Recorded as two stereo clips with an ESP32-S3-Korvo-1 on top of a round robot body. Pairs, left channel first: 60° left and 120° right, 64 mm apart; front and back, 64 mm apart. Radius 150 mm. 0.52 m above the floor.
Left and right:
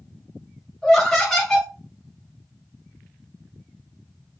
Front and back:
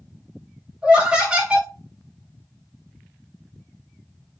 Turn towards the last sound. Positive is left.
turn(degrees=135)